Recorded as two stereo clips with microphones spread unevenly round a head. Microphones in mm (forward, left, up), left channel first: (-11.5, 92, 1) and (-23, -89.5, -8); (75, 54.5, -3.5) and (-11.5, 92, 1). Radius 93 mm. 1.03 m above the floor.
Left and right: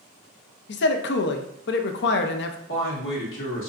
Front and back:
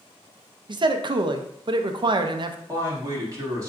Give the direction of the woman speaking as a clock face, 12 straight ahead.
9 o'clock.